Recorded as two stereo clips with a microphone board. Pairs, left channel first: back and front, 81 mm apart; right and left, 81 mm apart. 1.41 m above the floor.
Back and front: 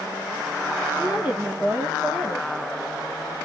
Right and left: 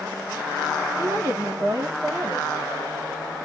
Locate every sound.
1.0 s a woman speaking: 55° left, 0.9 m